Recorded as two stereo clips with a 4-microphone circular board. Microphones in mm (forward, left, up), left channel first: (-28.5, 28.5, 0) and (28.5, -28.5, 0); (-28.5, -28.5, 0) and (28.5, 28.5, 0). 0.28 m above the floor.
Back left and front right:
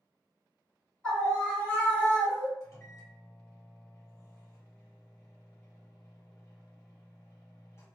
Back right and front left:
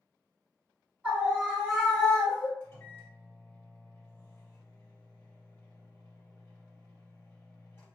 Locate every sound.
1.0 s a scream: 80° left, 1.1 m; by 2.5 s 170° left, 1.2 m
2.6 s a microwave: 170° left, 1.7 m